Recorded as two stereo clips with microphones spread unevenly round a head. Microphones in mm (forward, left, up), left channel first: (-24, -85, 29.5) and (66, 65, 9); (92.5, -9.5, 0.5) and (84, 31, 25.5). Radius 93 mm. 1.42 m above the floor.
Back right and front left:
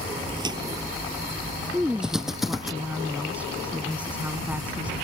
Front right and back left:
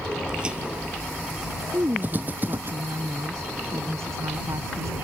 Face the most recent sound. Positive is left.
turn(degrees=145)